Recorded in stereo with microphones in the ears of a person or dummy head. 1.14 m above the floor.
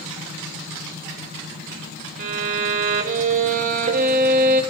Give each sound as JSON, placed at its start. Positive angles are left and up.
{"t": 2.2, "sound": "a violin", "side_deg": -40, "distance_m": 0.8}